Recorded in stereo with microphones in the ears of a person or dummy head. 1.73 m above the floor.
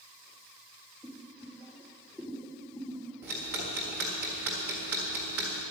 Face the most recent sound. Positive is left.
turn(degrees=-10)  # may be behind; listen again after turning